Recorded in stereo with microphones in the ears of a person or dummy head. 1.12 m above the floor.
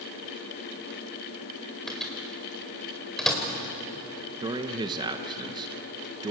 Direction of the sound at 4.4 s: 25° right (ahead or behind).